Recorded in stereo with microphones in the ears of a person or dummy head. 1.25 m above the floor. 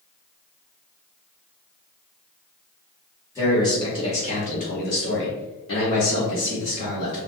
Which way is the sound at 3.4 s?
15° left (ahead or behind).